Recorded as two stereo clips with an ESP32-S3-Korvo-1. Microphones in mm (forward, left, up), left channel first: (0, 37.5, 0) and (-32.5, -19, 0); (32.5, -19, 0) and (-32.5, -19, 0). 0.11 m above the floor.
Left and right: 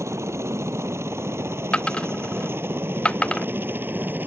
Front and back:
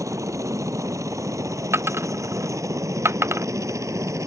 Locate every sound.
0.0 s a helicopter: 155° right; by 4.3 s 175° right
1.7 s a dropped coin: 135° left